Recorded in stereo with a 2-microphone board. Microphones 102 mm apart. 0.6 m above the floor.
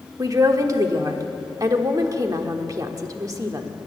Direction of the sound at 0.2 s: 40° right (ahead or behind).